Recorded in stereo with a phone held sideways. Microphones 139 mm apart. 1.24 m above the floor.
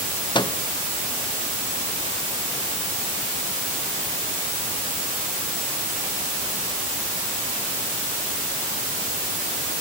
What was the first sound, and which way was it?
A microwave, 35° left (ahead or behind).